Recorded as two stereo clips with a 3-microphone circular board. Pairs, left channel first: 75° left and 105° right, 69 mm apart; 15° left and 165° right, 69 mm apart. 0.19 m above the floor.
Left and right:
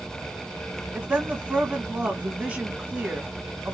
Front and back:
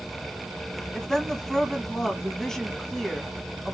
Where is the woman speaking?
55° right, 1.1 m.